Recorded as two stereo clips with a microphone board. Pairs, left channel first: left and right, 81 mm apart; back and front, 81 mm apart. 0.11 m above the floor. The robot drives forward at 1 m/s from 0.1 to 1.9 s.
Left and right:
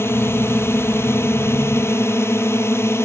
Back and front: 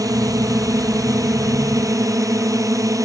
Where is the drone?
35° left; by 3.1 s 40° left.